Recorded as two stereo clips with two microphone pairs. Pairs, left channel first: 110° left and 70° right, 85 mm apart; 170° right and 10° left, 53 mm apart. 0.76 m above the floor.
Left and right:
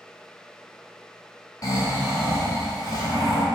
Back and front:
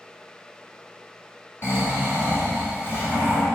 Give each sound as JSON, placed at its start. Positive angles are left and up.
{"t": 1.6, "sound": "snoring", "azimuth_deg": 150, "distance_m": 2.0}